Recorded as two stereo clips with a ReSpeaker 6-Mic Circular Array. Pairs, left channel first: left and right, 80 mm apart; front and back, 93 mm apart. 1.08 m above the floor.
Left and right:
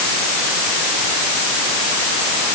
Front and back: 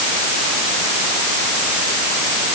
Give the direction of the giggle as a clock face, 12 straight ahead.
I don't hear a giggle.